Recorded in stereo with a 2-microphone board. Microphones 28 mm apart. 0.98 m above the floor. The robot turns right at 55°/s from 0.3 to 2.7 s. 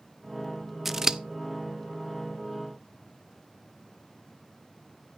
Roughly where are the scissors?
Centre.